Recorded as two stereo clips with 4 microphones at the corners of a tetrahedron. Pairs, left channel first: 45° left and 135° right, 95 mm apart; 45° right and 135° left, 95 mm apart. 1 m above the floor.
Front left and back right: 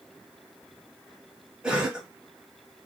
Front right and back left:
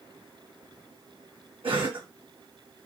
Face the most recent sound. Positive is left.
turn(degrees=145)